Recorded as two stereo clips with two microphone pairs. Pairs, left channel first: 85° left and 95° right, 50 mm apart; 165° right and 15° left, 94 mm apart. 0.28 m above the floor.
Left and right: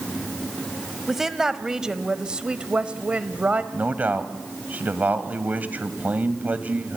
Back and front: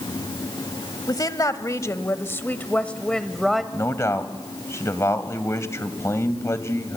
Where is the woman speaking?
175° right, 1.4 m; by 3.6 s 65° right, 1.2 m.